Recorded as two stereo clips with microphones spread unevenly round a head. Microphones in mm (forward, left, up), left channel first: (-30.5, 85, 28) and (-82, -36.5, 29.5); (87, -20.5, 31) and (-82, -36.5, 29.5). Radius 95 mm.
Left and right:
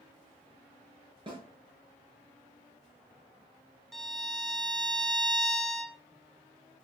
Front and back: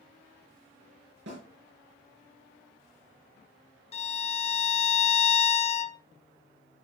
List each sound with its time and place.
1.3 s a snare drum: 165° right, 4.5 m
3.9 s a violin: 20° right, 0.8 m